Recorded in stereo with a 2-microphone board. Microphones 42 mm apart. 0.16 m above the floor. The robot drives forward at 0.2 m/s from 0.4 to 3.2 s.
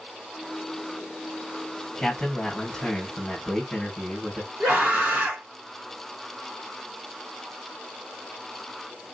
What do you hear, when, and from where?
2.0 s a man speaking: 15° left (ahead or behind), 1.6 m
4.6 s a scream: 45° right (ahead or behind), 2 m